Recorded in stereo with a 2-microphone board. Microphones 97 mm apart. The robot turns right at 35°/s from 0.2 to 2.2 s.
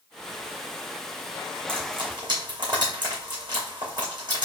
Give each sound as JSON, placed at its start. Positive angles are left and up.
{"t": 1.7, "sound": "frying", "side_deg": -70, "distance_m": 3.0}